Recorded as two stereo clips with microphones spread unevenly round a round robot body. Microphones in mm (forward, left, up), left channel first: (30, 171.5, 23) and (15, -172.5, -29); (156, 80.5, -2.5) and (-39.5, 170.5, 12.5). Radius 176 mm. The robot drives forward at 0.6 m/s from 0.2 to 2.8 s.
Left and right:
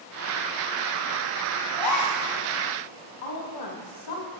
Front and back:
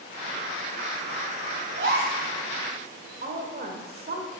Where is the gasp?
120° left, 3.5 m; by 2.2 s 125° left, 4 m.